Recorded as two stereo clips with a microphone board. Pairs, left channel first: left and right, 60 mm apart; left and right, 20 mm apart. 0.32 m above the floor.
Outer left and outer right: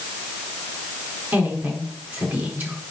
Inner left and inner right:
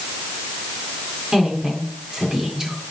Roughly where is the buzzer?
No buzzer in this recording.